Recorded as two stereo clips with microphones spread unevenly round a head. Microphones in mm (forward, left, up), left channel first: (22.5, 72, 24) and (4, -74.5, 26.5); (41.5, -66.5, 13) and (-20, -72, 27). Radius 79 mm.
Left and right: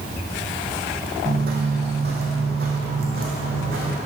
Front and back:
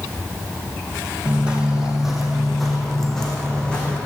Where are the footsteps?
120° right, 1.7 m; by 4.0 s 75° right, 2.5 m.